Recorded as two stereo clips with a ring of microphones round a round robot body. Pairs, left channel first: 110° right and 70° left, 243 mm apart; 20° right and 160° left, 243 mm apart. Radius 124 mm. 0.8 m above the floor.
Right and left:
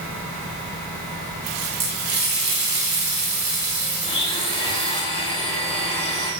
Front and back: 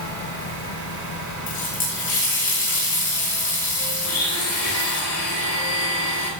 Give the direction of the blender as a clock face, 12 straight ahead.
1 o'clock.